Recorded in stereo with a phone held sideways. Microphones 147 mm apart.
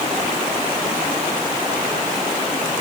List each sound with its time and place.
Only background noise.